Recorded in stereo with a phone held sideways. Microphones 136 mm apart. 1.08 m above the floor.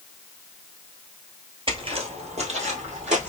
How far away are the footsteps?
About 1.4 m.